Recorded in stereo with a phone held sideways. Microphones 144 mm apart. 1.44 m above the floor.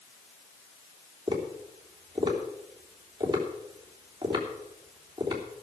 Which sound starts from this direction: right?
Tapping, at 1.3 s.